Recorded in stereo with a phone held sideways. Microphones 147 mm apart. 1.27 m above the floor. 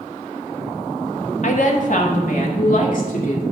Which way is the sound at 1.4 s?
55° left (ahead or behind).